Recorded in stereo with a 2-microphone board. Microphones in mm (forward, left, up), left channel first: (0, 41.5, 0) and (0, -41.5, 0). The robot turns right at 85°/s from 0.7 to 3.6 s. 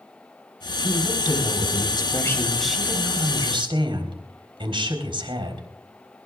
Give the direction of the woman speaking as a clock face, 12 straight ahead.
11 o'clock.